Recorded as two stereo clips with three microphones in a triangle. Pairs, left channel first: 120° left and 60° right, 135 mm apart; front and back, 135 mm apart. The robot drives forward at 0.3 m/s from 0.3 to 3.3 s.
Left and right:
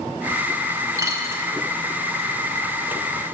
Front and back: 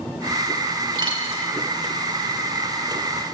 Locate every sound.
1.0 s a dropped coin: 125° right, 1.0 m; by 1.5 s 130° right, 1.1 m